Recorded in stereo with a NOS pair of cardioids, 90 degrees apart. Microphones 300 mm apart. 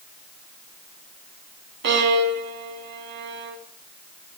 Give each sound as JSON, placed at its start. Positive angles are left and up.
{"t": 1.8, "sound": "a violin", "azimuth_deg": -60, "distance_m": 2.5}